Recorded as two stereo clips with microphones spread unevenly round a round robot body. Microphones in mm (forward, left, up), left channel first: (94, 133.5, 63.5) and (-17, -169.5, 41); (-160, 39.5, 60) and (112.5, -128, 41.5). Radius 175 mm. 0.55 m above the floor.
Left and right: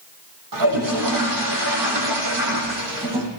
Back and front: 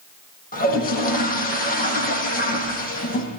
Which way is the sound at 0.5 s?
145° right.